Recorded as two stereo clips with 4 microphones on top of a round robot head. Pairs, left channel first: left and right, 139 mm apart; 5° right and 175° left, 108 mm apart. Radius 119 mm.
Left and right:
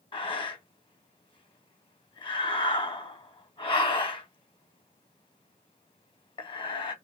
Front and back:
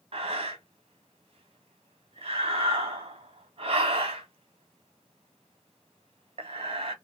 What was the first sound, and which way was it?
Breathing, 145° left.